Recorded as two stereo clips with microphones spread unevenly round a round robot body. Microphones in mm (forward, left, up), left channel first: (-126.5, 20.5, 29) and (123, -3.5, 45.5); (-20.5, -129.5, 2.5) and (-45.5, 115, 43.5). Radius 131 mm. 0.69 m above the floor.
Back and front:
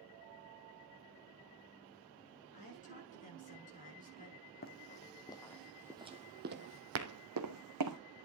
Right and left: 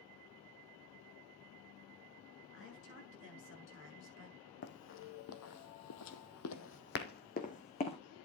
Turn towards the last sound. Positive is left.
turn(degrees=-15)